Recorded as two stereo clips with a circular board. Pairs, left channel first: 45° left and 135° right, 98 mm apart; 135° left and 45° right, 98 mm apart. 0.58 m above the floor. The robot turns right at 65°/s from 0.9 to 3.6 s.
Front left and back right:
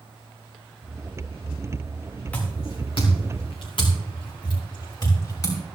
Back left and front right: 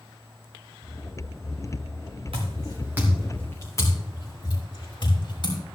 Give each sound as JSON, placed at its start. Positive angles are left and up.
{"t": 2.3, "sound": "footsteps", "azimuth_deg": -30, "distance_m": 3.0}